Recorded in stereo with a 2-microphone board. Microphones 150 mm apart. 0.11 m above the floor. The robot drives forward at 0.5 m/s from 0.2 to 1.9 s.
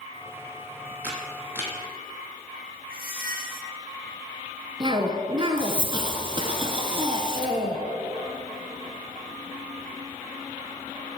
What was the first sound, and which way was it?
A camera shutter, 15° right (ahead or behind).